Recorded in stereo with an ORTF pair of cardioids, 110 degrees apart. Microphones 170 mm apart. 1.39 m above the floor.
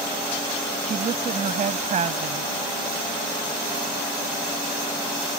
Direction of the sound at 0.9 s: 45° right.